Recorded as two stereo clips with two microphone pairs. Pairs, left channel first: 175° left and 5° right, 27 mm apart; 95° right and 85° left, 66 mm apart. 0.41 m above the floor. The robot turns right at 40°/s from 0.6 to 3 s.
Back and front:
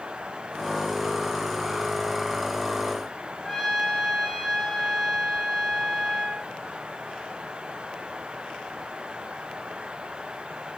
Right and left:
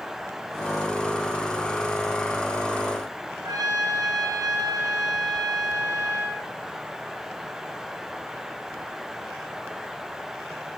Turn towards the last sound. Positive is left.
turn(degrees=100)